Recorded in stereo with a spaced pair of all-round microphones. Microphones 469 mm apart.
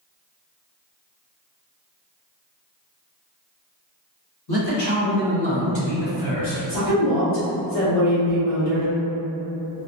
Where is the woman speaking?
60° left (ahead or behind), 1.7 m.